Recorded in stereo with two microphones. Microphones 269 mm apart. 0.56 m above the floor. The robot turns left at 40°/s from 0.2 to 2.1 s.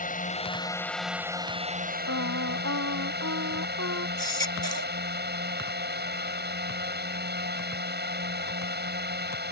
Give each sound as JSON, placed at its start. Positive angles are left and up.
{"t": 0.0, "sound": "a drone", "azimuth_deg": 35}
{"t": 2.1, "sound": "singing", "side_deg": -65}
{"t": 4.2, "sound": "a baby crying", "side_deg": -80}